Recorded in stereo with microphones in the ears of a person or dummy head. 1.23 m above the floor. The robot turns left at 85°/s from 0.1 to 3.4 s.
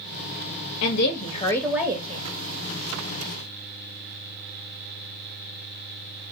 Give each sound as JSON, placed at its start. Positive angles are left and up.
{"t": 0.8, "sound": "a woman speaking", "azimuth_deg": 75, "distance_m": 0.9}